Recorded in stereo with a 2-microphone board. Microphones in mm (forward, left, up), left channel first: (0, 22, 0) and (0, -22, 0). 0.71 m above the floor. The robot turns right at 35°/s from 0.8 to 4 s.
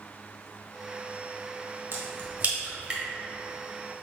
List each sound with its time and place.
1.9 s a crack: 55° right (ahead or behind), 1.7 m; by 3.0 s 20° right (ahead or behind), 1.7 m